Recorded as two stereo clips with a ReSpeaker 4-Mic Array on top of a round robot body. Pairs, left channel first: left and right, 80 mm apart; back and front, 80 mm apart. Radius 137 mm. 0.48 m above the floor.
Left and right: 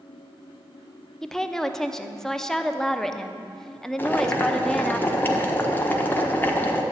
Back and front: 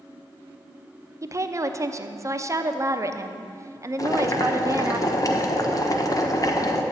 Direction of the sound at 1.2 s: 10° left.